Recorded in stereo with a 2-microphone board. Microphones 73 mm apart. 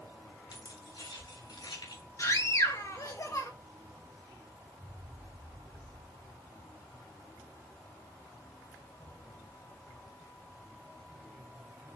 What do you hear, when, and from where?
0.5 s keys jangling: 70° left (ahead or behind), 3 m; by 2.0 s 80° left, 4 m
2.2 s a scream: 45° left (ahead or behind), 2.5 m